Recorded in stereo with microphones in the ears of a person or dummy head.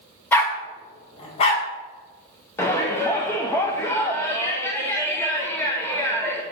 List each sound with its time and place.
0.3 s a dog barking: 15° left (ahead or behind), 0.7 m; by 1.6 s 40° left (ahead or behind), 1.4 m
2.6 s a shout: 15° left (ahead or behind), 0.7 m